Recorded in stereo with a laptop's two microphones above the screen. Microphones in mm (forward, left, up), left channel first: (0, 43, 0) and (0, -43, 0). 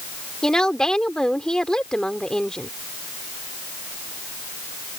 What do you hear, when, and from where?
0.4 s a woman speaking: 10° left (ahead or behind)